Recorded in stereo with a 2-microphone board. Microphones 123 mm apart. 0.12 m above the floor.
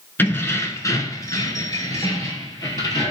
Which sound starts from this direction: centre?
Keys jangling, at 0.2 s.